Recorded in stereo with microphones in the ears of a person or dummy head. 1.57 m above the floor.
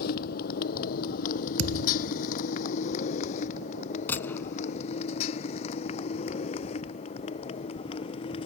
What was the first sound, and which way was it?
A motorcycle, 55° left (ahead or behind).